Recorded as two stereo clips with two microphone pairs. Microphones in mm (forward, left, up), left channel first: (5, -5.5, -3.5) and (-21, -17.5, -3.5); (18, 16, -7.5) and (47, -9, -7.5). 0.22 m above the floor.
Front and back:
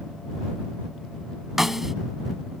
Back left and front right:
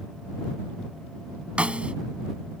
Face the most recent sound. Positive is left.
turn(degrees=-80)